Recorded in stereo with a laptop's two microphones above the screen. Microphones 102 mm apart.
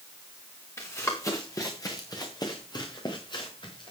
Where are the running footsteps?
25° left (ahead or behind), 5 m; by 3.9 s 50° left (ahead or behind), 6.5 m.